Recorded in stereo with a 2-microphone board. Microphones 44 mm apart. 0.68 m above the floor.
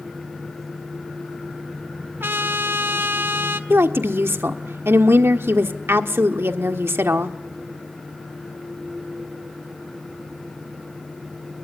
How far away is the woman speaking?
About 1.3 m.